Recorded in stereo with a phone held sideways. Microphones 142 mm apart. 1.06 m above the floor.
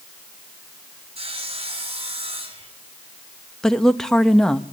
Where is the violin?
No violin in this recording.